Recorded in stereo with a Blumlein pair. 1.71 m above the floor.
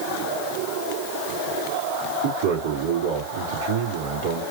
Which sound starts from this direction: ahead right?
A man speaking, at 2.2 s.